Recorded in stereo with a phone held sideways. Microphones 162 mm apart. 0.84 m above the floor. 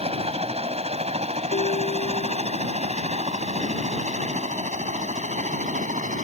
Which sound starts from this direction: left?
A ringtone, at 1.5 s.